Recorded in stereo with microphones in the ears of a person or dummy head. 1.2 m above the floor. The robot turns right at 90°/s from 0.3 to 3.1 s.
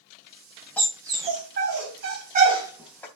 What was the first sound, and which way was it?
A dog barking, 10° left (ahead or behind).